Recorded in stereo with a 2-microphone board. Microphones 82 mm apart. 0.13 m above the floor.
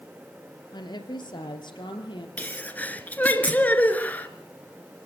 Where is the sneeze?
20° left (ahead or behind), 2.5 m.